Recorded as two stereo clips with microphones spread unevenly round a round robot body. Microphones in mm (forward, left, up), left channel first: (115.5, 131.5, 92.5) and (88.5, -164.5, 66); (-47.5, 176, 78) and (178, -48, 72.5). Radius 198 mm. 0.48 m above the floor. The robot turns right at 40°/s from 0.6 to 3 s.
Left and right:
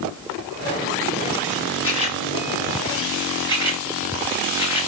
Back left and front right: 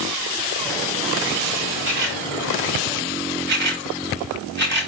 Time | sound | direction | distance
1.8 | a camera shutter | 35° right | 9 m